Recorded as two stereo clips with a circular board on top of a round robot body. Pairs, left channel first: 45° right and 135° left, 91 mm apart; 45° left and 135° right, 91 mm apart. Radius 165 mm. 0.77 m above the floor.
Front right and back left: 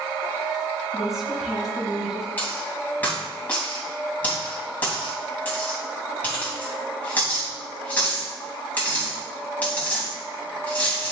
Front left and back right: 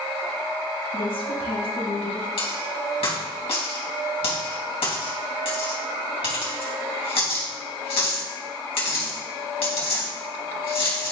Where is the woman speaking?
50° left, 2 m.